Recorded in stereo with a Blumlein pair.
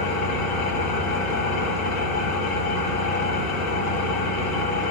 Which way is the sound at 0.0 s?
40° left.